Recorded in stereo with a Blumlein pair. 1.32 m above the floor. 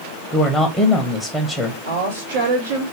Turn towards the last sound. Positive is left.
turn(degrees=-65)